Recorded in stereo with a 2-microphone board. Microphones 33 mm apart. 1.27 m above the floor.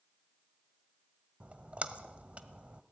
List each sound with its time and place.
1.4 s a splash: 40° right (ahead or behind), 1.3 m